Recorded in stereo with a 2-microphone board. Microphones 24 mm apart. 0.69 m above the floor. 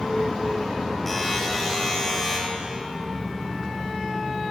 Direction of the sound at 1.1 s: 15° left (ahead or behind).